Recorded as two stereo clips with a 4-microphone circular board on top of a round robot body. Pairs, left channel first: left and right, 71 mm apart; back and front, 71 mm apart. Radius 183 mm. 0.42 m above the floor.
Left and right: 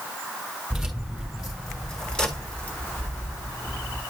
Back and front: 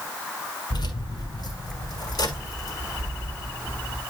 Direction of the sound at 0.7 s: 175° right.